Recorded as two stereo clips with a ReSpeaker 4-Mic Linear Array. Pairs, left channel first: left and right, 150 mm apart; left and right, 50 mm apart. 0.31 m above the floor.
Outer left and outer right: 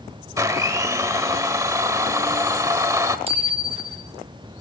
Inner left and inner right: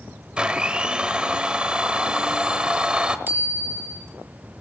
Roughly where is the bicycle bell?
Right.